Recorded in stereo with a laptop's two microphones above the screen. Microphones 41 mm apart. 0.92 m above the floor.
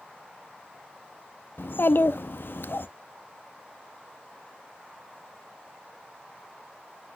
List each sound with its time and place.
1.6 s a child speaking: 65° left (ahead or behind), 0.5 m